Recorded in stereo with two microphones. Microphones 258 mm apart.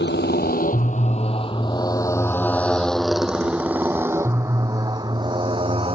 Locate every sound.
0.0 s a motorcycle: 40° left (ahead or behind); by 6.0 s 20° right (ahead or behind)